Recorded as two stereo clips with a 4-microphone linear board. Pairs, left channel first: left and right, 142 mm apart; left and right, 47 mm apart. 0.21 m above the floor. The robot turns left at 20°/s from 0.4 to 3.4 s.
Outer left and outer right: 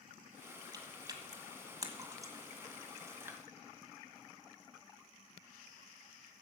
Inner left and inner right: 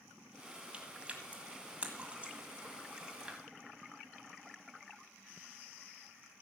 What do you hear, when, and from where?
0.7 s chewing: 25° right (ahead or behind), 1.6 m; by 3.4 s 15° right (ahead or behind), 1.6 m